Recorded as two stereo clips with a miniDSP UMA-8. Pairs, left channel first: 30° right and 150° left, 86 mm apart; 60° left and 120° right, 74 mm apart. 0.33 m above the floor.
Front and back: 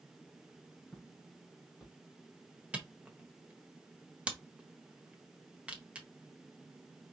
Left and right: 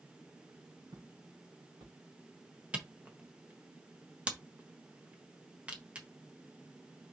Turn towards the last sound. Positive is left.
turn(degrees=-165)